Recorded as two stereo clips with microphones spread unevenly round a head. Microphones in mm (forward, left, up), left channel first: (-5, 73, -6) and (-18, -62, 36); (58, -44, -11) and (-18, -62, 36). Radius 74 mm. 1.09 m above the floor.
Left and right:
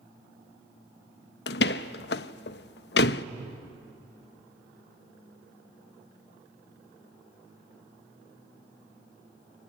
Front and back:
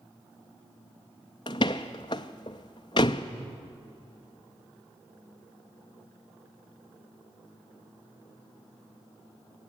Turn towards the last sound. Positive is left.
turn(degrees=75)